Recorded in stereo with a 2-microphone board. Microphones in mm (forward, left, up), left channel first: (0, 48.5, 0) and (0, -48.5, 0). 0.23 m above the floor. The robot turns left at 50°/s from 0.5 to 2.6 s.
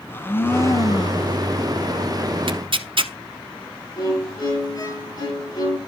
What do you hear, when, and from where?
0.1 s a blender: 155° left, 0.8 m; by 1.4 s 110° left, 0.8 m
2.5 s tearing paper: 60° right (ahead or behind), 0.7 m
4.0 s a violin: 45° left (ahead or behind), 2.5 m